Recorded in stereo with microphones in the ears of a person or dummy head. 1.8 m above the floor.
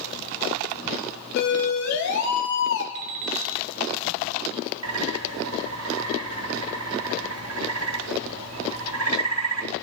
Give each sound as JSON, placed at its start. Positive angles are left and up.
{"t": 1.4, "sound": "a siren", "side_deg": 60, "distance_m": 3.5}
{"t": 3.0, "sound": "an alarm clock", "side_deg": -45, "distance_m": 1.6}
{"t": 4.8, "sound": "a bird", "side_deg": -85, "distance_m": 3.0}